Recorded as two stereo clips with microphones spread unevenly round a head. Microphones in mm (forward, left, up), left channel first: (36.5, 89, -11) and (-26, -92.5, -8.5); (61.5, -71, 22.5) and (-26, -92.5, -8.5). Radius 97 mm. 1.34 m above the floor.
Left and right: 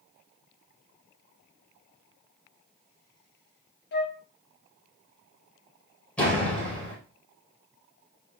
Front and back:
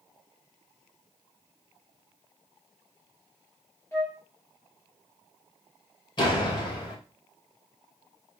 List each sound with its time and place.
3.9 s a flute: 60° left, 1.2 m
6.2 s a door slam: 15° right, 4 m